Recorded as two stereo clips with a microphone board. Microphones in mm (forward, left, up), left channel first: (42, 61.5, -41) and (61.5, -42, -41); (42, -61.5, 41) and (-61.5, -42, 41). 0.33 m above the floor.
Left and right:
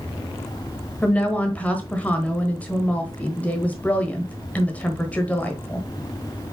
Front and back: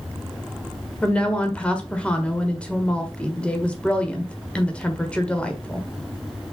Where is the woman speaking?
50° left, 1.3 m.